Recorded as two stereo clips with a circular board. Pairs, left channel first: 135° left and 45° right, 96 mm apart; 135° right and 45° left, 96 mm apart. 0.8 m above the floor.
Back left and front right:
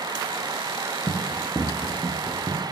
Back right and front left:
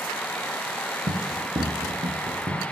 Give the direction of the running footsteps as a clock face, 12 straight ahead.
10 o'clock.